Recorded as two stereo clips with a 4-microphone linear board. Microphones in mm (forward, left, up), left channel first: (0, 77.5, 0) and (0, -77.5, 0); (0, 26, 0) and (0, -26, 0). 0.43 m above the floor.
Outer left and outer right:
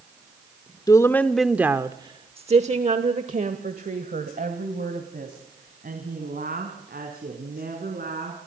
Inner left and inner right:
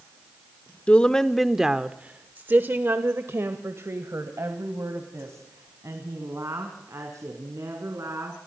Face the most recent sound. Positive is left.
turn(degrees=-75)  # may be behind; listen again after turning